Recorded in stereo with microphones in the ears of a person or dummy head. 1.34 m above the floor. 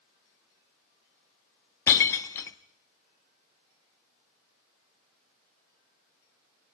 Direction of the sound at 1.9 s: 20° left (ahead or behind).